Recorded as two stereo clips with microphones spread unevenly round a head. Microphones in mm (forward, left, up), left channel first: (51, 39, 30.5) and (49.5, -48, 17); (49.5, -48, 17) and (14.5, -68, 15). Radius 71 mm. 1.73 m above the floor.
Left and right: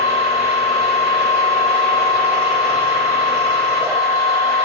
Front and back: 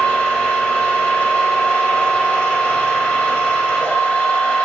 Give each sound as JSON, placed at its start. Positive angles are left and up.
{"t": 0.0, "sound": "a machine running", "azimuth_deg": -20, "distance_m": 1.6}